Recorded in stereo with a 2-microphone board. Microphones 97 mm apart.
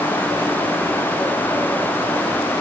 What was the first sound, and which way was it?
Only background noise.